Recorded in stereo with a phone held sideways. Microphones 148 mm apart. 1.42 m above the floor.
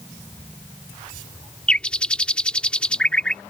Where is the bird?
5° left (ahead or behind).